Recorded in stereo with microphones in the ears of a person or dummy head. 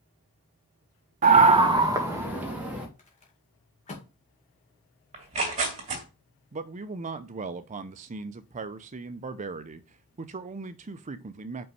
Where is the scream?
40° right (ahead or behind), 1.0 m; by 2.9 s 5° right (ahead or behind), 3 m.